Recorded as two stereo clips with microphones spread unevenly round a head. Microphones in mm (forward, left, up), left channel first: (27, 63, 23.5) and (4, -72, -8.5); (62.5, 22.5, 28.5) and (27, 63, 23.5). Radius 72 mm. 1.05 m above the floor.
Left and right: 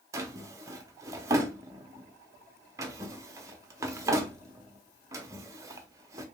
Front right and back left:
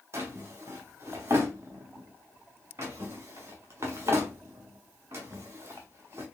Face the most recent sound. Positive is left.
turn(degrees=-175)